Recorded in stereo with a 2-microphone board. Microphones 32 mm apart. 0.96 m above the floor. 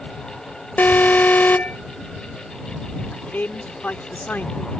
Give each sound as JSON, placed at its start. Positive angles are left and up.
{"t": 0.8, "sound": "an alarm", "side_deg": 75}
{"t": 3.1, "sound": "a man speaking", "side_deg": 75}